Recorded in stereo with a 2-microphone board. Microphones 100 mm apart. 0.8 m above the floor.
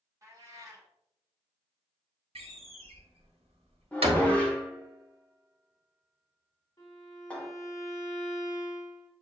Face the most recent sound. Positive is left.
turn(degrees=35)  # may be behind; listen again after turning